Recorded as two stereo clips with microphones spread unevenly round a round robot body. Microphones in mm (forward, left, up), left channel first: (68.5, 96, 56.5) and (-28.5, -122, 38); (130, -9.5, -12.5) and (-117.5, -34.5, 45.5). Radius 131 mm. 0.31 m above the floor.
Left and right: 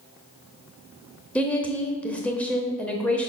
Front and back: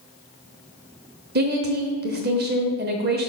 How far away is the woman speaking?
About 1.0 m.